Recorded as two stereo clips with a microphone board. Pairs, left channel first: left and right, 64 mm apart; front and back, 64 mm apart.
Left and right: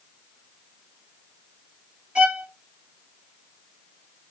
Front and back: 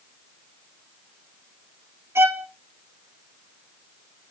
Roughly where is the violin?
Behind right.